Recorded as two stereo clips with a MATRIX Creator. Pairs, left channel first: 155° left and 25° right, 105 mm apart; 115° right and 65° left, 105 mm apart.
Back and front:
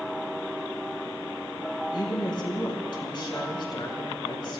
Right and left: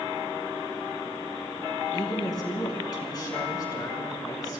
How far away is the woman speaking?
About 4 m.